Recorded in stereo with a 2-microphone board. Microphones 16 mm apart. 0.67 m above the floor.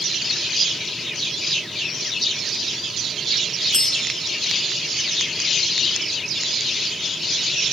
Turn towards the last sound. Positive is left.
turn(degrees=35)  # may be behind; listen again after turning